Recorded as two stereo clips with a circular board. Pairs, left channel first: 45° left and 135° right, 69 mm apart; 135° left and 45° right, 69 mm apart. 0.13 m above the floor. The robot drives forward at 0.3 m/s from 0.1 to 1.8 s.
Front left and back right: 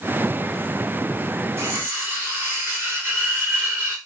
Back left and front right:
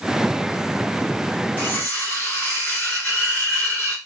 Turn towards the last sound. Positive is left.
turn(degrees=-170)